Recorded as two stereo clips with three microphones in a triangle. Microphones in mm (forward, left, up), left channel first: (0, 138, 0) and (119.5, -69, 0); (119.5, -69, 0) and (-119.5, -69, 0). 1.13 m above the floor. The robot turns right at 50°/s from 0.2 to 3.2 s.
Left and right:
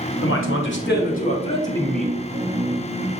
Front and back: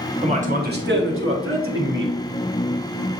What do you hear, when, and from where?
0.2 s a man speaking: 120° left, 1.0 m; by 2.1 s 145° right, 1.0 m